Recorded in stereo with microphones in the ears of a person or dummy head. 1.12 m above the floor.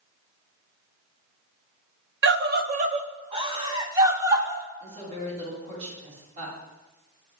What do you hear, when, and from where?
2.2 s a scream: 60° right (ahead or behind), 0.8 m; by 4.6 s 15° right (ahead or behind), 2.5 m
4.8 s a woman speaking: 40° right (ahead or behind), 9 m